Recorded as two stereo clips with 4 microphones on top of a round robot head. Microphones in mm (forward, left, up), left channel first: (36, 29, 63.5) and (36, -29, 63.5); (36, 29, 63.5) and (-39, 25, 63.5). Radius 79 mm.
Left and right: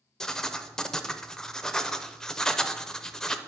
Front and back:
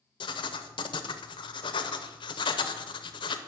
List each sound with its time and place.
0.2 s writing: 10° left, 0.7 m